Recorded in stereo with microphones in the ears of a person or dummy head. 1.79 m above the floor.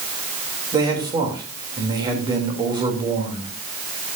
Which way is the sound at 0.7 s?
20° right (ahead or behind).